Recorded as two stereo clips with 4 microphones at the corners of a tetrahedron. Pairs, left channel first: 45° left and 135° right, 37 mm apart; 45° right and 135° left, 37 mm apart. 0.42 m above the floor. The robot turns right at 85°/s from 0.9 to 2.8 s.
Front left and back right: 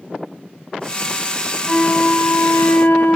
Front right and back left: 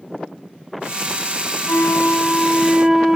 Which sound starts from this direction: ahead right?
A flute, at 1.7 s.